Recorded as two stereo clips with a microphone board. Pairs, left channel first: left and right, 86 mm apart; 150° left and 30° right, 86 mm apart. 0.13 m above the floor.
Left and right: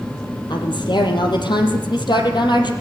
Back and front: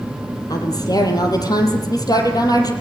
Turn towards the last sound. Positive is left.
turn(degrees=110)